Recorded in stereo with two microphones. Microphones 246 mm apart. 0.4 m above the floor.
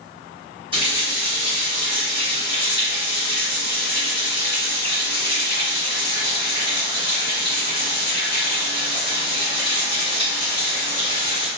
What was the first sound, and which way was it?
A running tap, 20° right (ahead or behind).